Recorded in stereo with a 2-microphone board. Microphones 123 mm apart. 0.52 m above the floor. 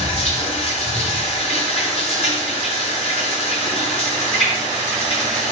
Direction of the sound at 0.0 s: 55° left (ahead or behind).